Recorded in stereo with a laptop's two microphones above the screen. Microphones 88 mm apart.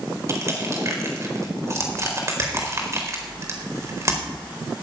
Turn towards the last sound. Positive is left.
turn(degrees=-35)  # may be behind; listen again after turning